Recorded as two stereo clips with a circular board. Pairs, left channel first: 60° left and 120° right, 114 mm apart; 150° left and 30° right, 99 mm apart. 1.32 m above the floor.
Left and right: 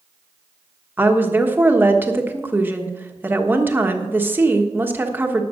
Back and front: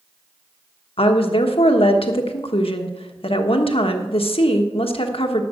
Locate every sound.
1.0 s a woman speaking: 165° left, 1.3 m